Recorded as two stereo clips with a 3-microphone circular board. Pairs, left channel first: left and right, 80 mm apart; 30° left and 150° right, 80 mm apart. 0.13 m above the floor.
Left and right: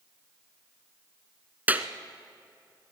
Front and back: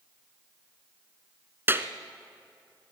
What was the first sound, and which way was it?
A clap, 135° right.